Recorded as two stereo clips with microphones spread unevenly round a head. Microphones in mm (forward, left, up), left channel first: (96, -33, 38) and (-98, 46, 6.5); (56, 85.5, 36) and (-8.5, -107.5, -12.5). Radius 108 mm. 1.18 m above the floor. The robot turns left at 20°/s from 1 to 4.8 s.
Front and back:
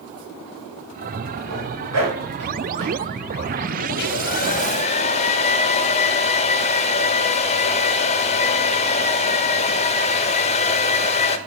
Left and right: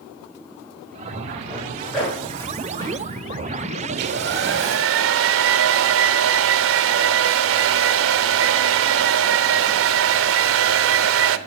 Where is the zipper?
170° left, 4 m; by 3.0 s 140° left, 4 m.